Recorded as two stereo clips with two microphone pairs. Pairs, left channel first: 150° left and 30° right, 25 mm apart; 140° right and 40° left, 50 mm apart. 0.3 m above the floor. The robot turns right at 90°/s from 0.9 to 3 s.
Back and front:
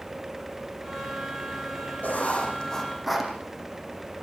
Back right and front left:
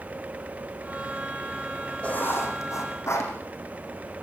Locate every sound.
2.0 s writing: 155° left, 5 m; by 3.3 s 115° right, 5 m